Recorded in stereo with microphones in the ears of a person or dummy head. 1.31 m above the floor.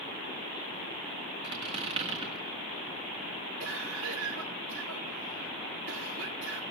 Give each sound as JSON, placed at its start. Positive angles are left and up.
{"t": 1.4, "sound": "a squeak", "side_deg": -35, "distance_m": 2.0}
{"t": 3.6, "sound": "a cough", "side_deg": -70, "distance_m": 3.0}